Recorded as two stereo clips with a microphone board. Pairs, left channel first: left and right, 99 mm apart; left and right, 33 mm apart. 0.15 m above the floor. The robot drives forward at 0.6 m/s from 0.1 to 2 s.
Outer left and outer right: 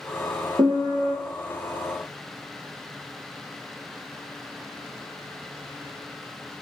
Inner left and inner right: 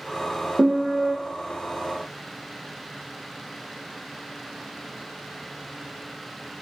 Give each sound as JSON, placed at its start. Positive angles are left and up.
{"t": 0.6, "sound": "a piano", "side_deg": -55, "distance_m": 0.6}